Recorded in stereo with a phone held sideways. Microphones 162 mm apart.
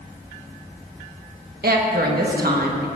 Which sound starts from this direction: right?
A woman speaking, at 1.6 s.